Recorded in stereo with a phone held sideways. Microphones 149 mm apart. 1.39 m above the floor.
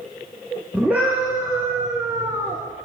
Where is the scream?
10° right (ahead or behind), 4.5 m; by 2.6 s 30° right (ahead or behind), 3.5 m.